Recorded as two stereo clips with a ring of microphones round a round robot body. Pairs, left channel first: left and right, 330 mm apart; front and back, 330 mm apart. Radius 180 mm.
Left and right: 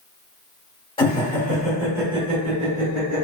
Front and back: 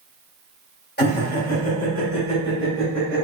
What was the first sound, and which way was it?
Laughter, 30° left.